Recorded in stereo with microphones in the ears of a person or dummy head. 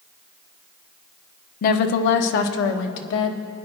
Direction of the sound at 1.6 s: 50° left (ahead or behind).